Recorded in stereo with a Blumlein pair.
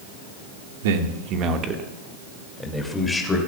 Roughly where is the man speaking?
Ahead right.